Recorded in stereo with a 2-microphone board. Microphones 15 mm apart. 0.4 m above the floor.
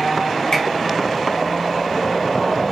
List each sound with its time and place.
0.5 s a finger snap: 40° left (ahead or behind), 1.4 m